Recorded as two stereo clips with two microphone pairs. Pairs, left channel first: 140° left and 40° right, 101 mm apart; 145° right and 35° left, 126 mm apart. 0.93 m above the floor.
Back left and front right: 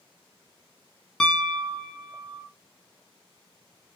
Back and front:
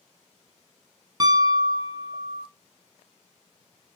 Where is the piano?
60° left, 0.5 m.